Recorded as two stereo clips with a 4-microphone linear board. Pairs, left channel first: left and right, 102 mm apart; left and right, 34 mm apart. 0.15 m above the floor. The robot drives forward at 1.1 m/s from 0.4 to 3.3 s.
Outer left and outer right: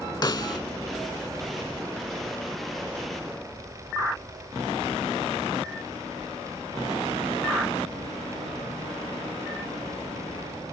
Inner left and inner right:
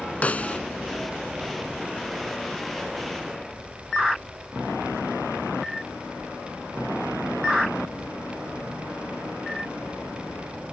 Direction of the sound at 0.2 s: 40° left (ahead or behind).